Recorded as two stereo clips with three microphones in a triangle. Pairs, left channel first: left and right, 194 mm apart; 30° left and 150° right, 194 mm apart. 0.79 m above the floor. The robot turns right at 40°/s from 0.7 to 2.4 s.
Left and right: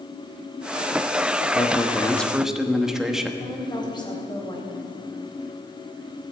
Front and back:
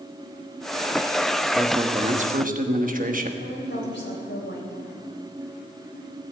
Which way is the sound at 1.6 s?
150° left.